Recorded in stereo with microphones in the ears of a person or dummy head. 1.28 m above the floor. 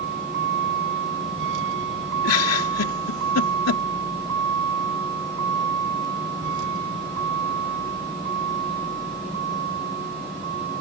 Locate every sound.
0.0 s a vehicle: 65° right (ahead or behind); by 10.8 s 50° right (ahead or behind)
2.2 s a giggle: 85° left